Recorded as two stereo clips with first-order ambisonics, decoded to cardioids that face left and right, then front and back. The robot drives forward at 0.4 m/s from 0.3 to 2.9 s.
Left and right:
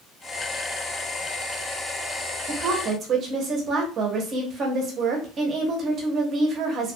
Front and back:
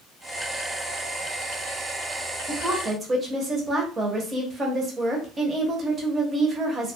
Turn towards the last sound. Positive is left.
turn(degrees=-125)